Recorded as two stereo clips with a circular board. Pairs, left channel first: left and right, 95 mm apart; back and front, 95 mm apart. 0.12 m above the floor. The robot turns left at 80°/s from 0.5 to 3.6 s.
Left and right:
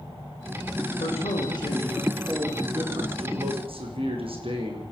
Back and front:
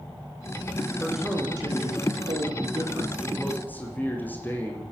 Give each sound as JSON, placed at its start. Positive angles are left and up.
{"t": 1.0, "sound": "a man speaking", "azimuth_deg": 100, "distance_m": 8.5}